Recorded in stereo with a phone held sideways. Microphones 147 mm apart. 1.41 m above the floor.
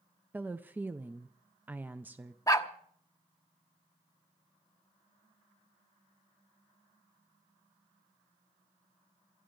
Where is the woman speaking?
10° right (ahead or behind), 0.5 m.